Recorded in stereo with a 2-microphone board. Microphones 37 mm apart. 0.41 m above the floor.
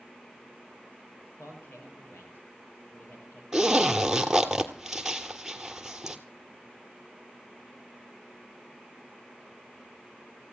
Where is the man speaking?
80° left, 8.5 m.